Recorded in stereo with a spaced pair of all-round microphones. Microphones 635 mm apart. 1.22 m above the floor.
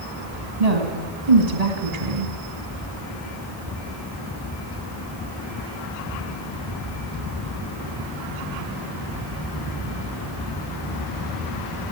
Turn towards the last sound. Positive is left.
turn(degrees=-75)  # may be behind; listen again after turning